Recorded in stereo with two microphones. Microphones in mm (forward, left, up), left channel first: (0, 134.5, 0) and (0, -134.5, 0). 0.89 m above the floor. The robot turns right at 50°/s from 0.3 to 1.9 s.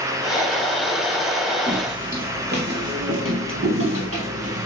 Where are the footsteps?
15° right (ahead or behind), 1.4 m; by 4.7 s 60° right (ahead or behind), 1.6 m.